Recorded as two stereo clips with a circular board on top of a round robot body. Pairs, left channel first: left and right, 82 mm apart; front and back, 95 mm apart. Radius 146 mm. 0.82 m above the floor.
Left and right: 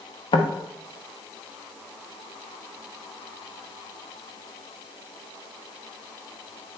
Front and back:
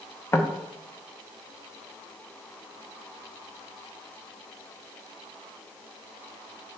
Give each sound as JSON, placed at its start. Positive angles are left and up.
{"t": 0.3, "sound": "knocking", "azimuth_deg": 65, "distance_m": 0.7}